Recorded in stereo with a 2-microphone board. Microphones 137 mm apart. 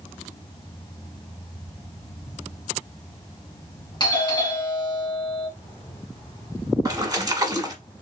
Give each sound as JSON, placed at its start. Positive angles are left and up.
{"t": 4.0, "sound": "a doorbell", "side_deg": 35, "distance_m": 2.5}
{"t": 6.8, "sound": "a splash", "side_deg": -25, "distance_m": 1.1}